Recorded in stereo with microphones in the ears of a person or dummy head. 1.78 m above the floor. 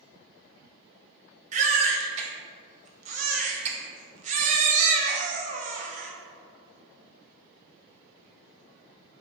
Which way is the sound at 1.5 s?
45° right (ahead or behind).